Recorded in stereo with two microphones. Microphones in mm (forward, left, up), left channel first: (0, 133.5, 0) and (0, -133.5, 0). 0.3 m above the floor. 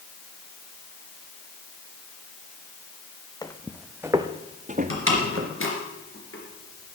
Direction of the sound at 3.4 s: 15° left (ahead or behind).